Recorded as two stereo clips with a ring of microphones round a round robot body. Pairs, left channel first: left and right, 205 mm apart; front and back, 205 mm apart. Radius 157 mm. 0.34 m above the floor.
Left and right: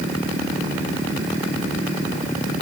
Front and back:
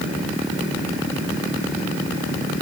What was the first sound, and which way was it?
Only background noise.